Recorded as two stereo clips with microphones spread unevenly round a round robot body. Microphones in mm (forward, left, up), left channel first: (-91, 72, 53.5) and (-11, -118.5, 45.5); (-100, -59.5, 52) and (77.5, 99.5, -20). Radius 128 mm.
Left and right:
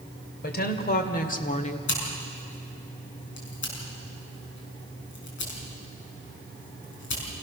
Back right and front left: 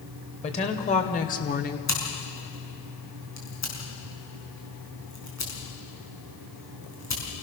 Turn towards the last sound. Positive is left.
turn(degrees=140)